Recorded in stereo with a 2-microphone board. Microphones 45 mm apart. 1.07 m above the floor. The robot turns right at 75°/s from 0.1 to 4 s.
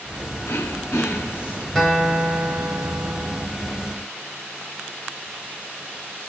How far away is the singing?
No singing in this recording.